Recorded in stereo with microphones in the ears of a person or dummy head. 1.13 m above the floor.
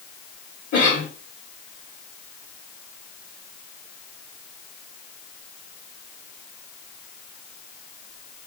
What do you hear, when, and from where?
0.7 s a cough: 45° left (ahead or behind), 1.7 m